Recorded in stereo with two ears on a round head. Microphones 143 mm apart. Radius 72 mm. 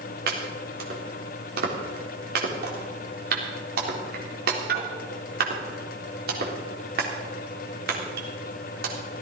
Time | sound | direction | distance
0.3 | chopping | 70° right (ahead or behind) | 3.5 m